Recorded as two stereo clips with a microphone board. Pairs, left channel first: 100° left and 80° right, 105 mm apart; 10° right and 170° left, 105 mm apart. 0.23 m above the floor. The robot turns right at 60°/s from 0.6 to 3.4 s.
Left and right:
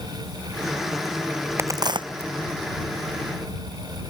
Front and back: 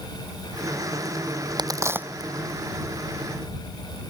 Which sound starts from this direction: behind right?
A crack, at 1.6 s.